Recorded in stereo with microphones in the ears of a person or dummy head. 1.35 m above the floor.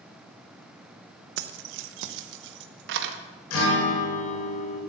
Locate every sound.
1.4 s keys jangling: 50° right (ahead or behind), 0.6 m; by 3.2 s 65° right (ahead or behind), 1.4 m
3.5 s a guitar: 85° left, 6.5 m